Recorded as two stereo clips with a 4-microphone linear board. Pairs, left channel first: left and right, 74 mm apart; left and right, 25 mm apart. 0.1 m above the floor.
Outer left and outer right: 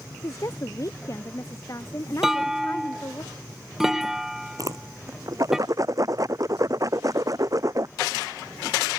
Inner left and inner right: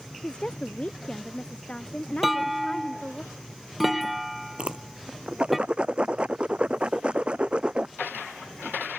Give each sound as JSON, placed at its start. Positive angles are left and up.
{"t": 0.2, "sound": "a woman speaking", "side_deg": 45}
{"t": 2.2, "sound": "a clunk", "side_deg": -5}
{"t": 4.6, "sound": "a whoosh", "side_deg": -50}